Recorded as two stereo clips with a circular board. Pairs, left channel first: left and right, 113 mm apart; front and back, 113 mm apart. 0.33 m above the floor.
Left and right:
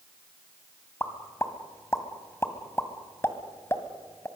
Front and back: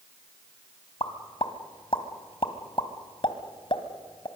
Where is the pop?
25° left, 1.7 m.